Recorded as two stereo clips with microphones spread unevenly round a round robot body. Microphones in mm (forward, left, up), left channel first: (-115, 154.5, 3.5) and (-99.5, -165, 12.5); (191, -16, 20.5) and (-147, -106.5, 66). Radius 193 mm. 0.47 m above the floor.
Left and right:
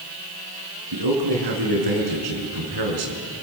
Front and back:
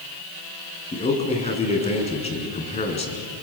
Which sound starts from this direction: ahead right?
A man speaking, at 0.9 s.